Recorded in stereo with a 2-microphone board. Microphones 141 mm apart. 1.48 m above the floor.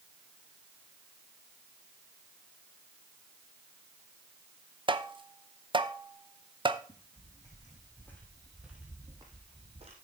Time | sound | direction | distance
4.9 | tapping | 35° right (ahead or behind) | 0.7 m
6.9 | footsteps | 40° left (ahead or behind) | 4 m